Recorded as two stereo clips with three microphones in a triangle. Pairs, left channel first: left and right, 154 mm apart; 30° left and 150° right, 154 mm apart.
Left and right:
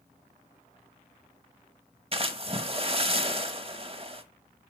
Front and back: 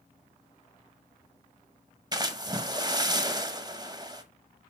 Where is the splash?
105° right, 1.0 m.